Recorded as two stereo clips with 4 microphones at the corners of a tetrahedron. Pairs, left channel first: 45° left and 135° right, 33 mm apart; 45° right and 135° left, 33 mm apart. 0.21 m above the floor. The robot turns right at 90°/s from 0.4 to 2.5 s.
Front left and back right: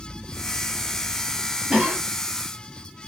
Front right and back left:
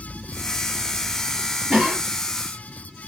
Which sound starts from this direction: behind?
A cough, at 1.7 s.